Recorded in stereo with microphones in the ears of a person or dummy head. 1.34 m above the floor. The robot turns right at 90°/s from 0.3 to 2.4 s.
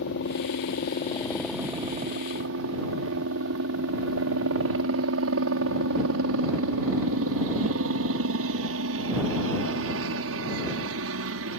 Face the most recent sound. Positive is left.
turn(degrees=-95)